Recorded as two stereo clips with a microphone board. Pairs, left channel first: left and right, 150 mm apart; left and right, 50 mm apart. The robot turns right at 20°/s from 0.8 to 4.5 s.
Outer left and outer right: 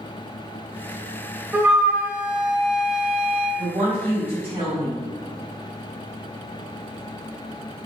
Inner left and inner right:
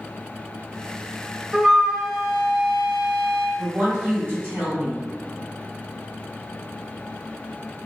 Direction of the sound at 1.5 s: 15° right (ahead or behind).